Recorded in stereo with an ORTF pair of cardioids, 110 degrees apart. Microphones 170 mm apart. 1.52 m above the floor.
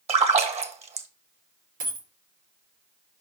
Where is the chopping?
No chopping in this recording.